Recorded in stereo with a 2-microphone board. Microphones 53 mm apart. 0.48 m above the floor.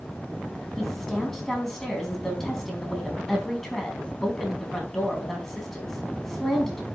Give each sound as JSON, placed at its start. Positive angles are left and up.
{"t": 0.8, "sound": "a woman speaking", "side_deg": 5, "distance_m": 4.5}